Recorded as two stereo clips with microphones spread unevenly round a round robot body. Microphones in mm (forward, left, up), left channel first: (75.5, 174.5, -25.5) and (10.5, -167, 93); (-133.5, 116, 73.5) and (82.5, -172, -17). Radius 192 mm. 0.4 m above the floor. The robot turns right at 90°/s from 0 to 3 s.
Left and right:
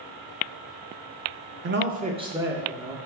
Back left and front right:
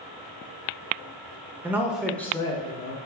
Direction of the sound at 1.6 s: 45° right.